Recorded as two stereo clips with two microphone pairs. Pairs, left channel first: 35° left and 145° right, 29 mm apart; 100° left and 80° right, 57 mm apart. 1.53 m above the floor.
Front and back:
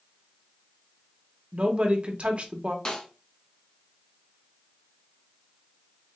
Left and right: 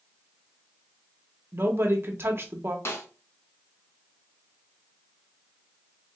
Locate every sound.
1.5 s a woman speaking: 115° right, 0.8 m
2.9 s a snare drum: 90° left, 1.2 m